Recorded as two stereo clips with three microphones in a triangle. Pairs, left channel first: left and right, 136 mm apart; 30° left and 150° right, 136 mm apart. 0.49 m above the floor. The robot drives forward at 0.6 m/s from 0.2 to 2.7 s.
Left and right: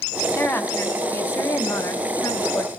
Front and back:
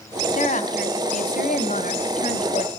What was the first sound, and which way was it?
A woman speaking, 15° left.